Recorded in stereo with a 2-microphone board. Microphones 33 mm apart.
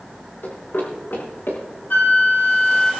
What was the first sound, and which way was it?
Running footsteps, 75° left (ahead or behind).